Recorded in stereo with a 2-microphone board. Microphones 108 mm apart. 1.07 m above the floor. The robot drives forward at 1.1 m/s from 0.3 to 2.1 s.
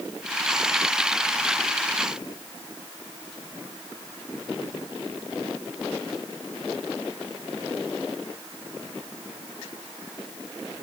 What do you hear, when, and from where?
Only background noise.